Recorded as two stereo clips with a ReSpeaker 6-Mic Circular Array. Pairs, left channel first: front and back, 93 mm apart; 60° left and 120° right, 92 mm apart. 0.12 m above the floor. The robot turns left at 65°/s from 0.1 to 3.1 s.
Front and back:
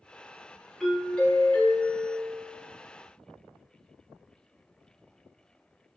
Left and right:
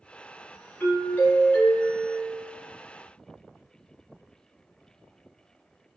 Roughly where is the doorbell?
Left.